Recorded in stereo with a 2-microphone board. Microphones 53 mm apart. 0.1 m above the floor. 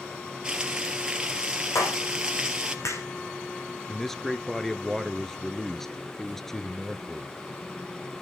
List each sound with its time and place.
0.4 s frying: 15° right (ahead or behind), 2 m
1.8 s a clap: 70° left (ahead or behind), 5.5 m
3.9 s a man speaking: 5° left (ahead or behind), 1.2 m